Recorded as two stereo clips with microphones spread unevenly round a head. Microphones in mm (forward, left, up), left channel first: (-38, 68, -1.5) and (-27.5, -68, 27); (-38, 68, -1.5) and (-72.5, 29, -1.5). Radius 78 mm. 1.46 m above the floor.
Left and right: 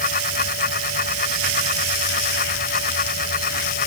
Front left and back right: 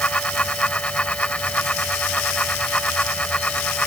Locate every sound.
0.0 s a fan: 115° left